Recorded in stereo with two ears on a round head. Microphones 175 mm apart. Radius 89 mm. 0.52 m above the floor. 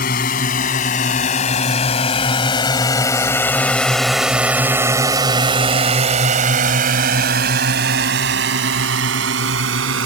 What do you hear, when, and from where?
0.0 s a drone: 45° left (ahead or behind); by 10.1 s 70° right (ahead or behind)